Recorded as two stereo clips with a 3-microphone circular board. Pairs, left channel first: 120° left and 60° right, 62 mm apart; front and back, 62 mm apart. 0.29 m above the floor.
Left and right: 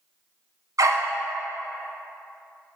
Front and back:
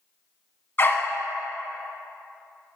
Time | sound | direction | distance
0.8 | a dog barking | 50° right | 0.8 m